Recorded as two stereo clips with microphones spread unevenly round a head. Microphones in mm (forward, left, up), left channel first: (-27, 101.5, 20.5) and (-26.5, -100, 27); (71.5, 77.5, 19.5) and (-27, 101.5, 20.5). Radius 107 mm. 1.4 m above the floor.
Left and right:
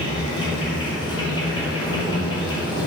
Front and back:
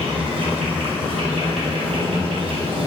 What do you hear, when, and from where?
0.0 s an insect: 155° left, 2 m